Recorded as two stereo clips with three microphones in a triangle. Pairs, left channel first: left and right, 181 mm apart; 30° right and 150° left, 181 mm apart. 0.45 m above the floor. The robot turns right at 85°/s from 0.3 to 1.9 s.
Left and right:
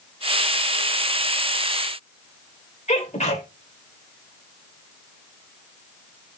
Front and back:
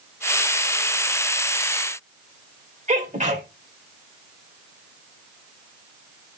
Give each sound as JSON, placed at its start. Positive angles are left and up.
{"t": 2.9, "sound": "a sneeze", "azimuth_deg": 125, "distance_m": 2.0}